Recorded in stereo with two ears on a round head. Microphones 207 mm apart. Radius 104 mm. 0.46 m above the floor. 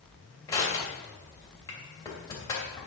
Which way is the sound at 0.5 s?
15° left (ahead or behind).